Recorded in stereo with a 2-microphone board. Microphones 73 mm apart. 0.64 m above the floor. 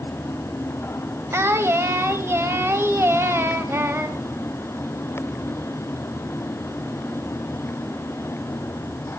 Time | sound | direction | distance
1.3 | singing | 35° right (ahead or behind) | 2.5 m